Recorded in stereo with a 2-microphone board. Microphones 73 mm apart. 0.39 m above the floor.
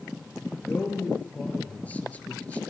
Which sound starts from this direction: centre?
A man speaking, at 0.6 s.